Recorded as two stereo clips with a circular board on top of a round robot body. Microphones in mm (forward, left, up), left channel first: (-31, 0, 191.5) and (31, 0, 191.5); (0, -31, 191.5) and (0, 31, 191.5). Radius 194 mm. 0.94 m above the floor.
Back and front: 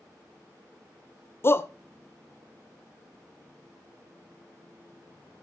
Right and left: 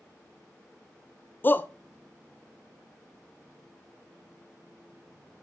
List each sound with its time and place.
1.4 s a shout: 140° right, 0.6 m